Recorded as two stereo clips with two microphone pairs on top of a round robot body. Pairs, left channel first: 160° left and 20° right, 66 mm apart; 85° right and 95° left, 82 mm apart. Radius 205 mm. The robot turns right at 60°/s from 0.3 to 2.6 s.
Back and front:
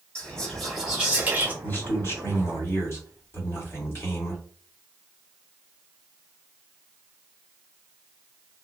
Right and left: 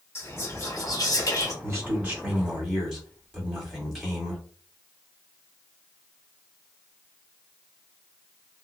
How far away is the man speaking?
About 1.7 m.